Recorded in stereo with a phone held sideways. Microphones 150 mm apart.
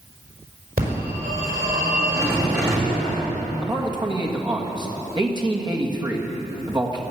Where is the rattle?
20° right (ahead or behind), 2.5 m.